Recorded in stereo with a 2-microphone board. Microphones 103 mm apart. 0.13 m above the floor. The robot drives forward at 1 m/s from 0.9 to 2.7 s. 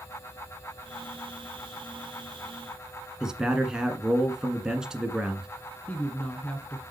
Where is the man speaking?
5° right (ahead or behind), 1.3 m.